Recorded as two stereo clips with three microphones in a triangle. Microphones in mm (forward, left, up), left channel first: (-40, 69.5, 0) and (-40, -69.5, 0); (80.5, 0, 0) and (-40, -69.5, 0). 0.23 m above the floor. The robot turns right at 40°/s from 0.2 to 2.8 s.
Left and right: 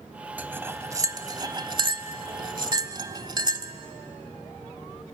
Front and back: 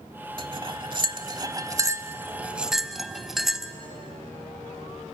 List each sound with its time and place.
0.4 s cutlery clinking: 160° right, 0.8 m; by 3.7 s 65° right, 0.8 m